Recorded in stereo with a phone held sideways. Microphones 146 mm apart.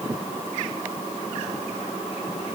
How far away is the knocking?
No knocking in this recording.